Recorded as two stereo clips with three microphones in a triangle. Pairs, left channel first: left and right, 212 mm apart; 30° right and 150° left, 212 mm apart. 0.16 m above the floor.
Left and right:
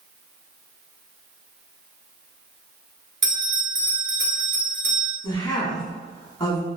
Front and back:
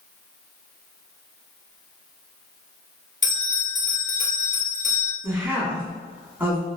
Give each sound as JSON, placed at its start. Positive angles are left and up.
{"t": 3.2, "sound": "a bell", "azimuth_deg": -75, "distance_m": 1.3}
{"t": 5.2, "sound": "a woman speaking", "azimuth_deg": 90, "distance_m": 1.0}